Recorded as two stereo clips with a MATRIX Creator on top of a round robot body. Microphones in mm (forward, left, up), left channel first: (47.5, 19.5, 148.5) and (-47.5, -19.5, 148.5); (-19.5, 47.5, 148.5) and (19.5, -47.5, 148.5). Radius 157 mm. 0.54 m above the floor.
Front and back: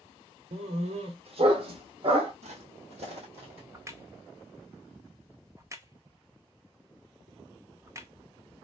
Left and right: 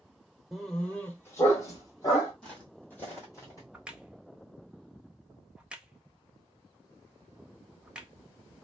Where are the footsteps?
165° right, 1.6 m; by 3.6 s 170° left, 1.7 m.